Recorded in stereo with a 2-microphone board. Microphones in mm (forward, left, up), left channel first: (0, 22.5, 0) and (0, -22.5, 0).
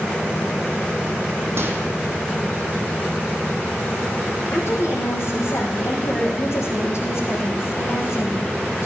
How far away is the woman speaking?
About 4.5 m.